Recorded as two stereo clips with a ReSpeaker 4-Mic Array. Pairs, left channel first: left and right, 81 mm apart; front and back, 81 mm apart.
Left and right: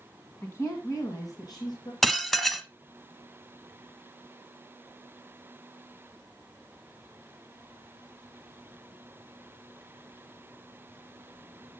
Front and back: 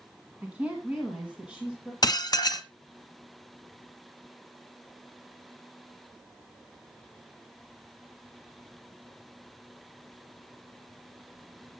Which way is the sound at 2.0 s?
5° left.